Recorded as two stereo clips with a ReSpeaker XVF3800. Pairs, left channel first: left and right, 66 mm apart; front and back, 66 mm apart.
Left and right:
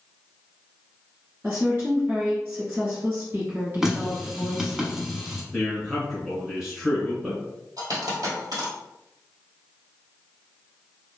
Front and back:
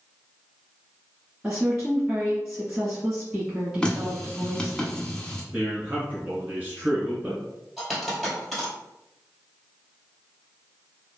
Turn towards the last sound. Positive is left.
turn(degrees=-90)